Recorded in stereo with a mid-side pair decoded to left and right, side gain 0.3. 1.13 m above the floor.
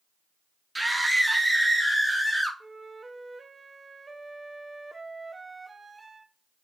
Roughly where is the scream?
Ahead.